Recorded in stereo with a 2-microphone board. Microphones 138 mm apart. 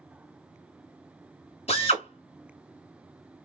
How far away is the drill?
About 0.9 m.